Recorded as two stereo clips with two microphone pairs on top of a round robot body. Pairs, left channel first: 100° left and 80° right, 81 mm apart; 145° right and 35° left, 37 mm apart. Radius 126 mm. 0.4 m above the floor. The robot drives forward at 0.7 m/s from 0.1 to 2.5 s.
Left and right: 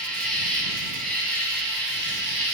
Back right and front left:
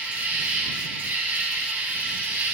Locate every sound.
0.0 s an insect: 20° left, 3 m; by 2.5 s 40° left, 1.6 m